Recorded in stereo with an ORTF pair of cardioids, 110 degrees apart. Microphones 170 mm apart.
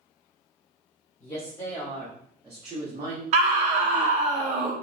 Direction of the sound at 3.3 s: 45° right.